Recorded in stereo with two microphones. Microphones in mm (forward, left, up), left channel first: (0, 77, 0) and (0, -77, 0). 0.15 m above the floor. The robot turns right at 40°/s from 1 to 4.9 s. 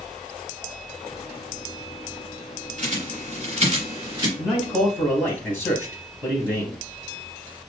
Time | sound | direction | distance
2.8 | a bird | 50° right (ahead or behind) | 2.5 m
4.4 | a man speaking | centre (ahead or behind) | 3 m